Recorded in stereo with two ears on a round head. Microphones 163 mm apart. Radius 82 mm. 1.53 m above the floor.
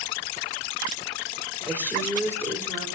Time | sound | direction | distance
1.7 | a woman speaking | 10° left (ahead or behind) | 4 m